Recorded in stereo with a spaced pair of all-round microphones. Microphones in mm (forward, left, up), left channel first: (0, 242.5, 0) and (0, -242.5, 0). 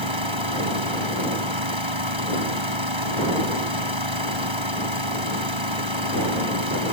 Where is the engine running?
70° right (ahead or behind).